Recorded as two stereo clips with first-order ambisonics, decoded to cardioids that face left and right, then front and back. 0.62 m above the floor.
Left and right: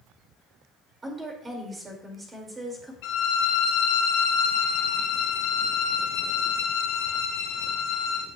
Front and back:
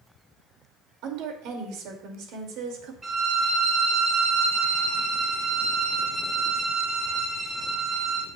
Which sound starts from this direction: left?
A violin, at 3.0 s.